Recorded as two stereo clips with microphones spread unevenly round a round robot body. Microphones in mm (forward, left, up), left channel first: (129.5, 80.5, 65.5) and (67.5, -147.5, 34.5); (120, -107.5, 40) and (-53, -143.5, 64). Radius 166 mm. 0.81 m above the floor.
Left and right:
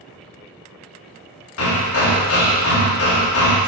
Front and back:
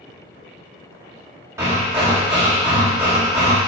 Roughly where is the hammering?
Left.